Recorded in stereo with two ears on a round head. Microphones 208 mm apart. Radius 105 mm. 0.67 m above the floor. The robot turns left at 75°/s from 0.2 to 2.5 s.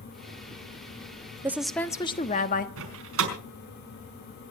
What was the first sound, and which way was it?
A woman speaking, 165° right.